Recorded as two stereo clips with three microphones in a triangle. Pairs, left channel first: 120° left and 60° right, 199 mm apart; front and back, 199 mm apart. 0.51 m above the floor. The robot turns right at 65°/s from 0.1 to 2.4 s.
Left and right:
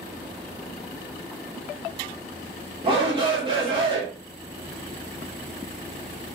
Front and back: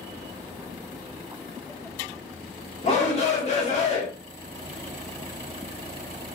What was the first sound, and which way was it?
A shout, 20° right.